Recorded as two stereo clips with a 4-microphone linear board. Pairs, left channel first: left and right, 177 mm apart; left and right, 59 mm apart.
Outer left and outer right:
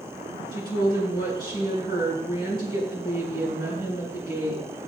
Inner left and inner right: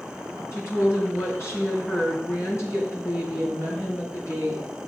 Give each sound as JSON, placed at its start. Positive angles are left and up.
{"t": 0.5, "sound": "a woman speaking", "side_deg": 60, "distance_m": 4.5}